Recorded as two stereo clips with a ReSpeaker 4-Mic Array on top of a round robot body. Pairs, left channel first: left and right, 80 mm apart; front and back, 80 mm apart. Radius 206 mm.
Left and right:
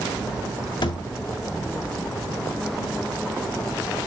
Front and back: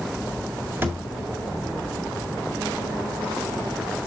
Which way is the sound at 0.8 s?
115° left.